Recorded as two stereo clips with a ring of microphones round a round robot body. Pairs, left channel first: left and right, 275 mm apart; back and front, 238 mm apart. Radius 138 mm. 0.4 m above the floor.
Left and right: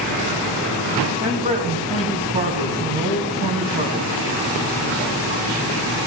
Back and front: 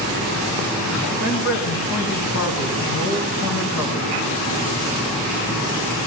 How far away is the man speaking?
About 3 m.